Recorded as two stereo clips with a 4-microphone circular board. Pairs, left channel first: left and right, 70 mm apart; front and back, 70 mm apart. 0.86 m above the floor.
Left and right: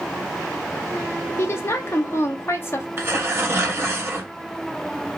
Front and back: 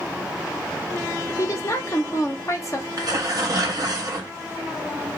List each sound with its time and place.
1.4 s a woman speaking: 40° left, 0.6 m
3.0 s tearing paper: 145° right, 0.7 m